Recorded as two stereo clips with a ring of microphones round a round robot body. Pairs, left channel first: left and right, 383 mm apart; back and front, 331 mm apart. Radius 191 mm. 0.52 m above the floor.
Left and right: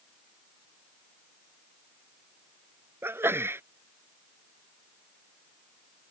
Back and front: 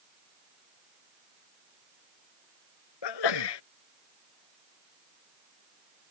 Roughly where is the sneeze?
Behind.